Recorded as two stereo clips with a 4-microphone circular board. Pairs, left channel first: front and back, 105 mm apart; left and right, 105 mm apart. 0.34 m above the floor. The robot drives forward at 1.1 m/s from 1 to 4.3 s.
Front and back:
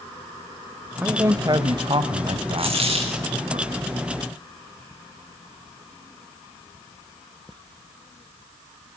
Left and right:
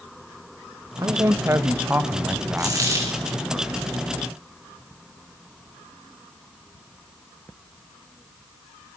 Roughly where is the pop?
No pop in this recording.